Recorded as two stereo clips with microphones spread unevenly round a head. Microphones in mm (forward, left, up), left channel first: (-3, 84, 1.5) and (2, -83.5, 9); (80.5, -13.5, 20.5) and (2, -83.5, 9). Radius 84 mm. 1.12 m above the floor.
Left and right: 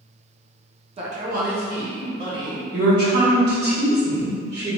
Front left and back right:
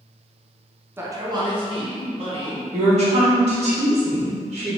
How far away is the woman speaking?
About 1.6 m.